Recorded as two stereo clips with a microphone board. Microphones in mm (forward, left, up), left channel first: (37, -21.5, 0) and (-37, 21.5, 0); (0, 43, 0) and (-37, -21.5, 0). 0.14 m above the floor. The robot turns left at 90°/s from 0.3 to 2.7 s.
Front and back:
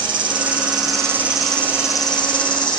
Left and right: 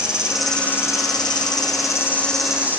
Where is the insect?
160° left, 0.7 m; by 2.8 s 55° right, 0.7 m.